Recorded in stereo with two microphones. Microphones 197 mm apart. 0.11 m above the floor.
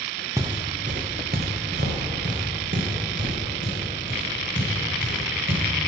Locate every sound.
0.4 s footsteps: 15° right (ahead or behind), 0.6 m; by 5.6 s 75° right (ahead or behind), 4 m